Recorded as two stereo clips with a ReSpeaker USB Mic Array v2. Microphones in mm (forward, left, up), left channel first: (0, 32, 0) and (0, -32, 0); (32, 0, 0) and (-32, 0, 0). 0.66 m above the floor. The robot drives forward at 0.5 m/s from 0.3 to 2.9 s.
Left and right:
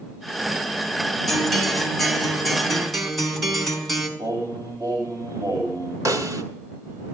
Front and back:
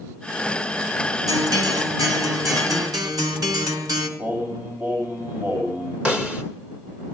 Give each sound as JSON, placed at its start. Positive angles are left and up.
{"t": 1.3, "sound": "a guitar", "azimuth_deg": 175, "distance_m": 1.7}
{"t": 4.2, "sound": "singing", "azimuth_deg": -125, "distance_m": 5.0}
{"t": 6.0, "sound": "a snare drum", "azimuth_deg": -110, "distance_m": 1.6}